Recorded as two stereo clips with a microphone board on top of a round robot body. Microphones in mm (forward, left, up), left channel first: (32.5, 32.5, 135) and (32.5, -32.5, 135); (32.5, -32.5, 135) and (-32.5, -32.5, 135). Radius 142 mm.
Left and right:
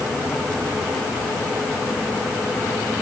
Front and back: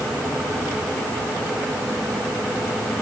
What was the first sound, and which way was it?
Only background noise.